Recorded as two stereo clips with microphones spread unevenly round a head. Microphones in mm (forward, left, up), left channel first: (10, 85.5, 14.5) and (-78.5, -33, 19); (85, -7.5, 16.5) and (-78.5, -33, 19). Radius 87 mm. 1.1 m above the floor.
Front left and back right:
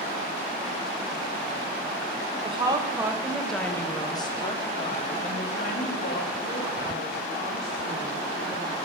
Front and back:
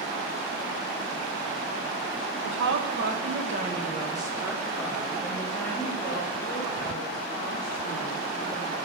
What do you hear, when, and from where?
2.4 s a woman speaking: 175° left, 1.1 m; by 8.8 s 75° left, 3.5 m